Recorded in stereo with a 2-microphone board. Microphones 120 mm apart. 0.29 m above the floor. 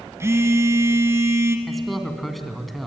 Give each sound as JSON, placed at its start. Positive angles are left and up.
{"t": 0.2, "sound": "a phone buzzing", "side_deg": -25, "distance_m": 1.7}
{"t": 1.7, "sound": "a man speaking", "side_deg": 0, "distance_m": 2.5}